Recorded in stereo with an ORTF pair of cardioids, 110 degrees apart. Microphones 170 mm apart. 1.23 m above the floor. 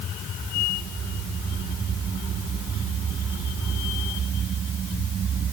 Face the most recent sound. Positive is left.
No sound to turn to.